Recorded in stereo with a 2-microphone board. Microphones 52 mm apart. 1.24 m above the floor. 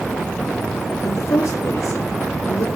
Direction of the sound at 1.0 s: 65° left (ahead or behind).